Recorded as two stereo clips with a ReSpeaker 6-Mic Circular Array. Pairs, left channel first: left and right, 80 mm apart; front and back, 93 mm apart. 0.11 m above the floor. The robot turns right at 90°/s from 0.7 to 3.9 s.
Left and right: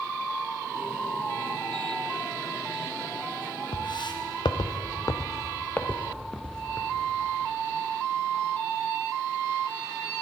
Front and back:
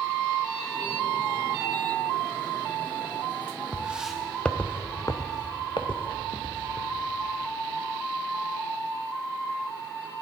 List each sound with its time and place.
3.7 s footsteps: 90° left, 0.9 m; by 7.1 s 5° left, 1.7 m